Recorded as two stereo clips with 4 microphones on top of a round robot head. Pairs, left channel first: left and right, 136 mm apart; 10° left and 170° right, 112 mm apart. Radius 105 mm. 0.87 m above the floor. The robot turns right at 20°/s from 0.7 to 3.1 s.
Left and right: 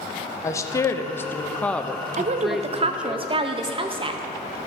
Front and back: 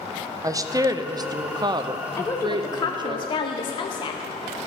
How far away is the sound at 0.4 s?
About 0.7 m.